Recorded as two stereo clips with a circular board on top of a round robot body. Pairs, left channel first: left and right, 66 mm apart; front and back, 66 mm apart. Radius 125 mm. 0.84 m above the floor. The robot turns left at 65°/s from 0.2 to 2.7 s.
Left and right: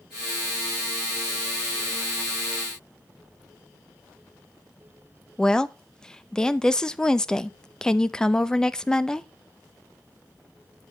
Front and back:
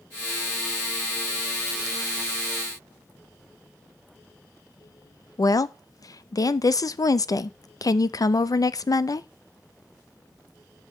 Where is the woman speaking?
10° left, 0.7 m.